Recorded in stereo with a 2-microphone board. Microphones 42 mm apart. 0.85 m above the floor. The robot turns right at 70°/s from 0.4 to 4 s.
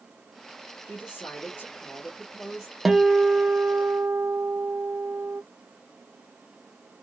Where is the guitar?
175° right, 0.5 m; by 5.4 s 95° right, 0.5 m.